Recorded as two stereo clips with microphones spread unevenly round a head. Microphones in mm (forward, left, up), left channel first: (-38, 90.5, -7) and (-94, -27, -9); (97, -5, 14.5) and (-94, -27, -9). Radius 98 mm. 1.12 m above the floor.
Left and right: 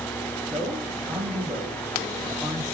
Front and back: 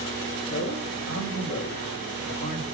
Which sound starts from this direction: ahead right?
A man speaking, at 0.4 s.